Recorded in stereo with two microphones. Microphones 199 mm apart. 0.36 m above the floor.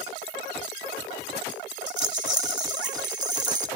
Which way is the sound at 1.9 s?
65° right (ahead or behind).